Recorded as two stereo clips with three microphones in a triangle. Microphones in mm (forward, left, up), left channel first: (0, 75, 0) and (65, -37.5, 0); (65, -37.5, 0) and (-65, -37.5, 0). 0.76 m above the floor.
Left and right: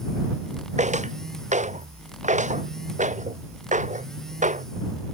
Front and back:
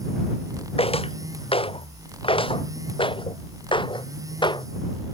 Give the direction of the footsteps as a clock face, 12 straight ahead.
1 o'clock.